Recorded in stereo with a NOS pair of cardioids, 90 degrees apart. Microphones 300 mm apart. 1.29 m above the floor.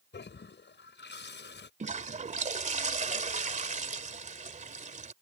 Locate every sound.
0.1 s a toilet flushing: 35° left
1.8 s a toilet flushing: 25° right